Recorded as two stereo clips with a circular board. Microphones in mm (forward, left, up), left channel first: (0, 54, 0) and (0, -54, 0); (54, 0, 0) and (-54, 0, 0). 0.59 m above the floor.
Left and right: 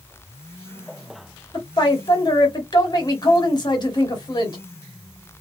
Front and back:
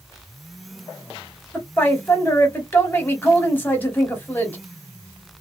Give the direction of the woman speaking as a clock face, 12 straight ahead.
10 o'clock.